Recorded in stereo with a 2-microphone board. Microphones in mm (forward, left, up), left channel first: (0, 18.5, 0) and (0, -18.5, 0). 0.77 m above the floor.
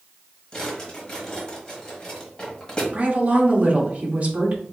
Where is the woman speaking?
40° right (ahead or behind), 1.1 m.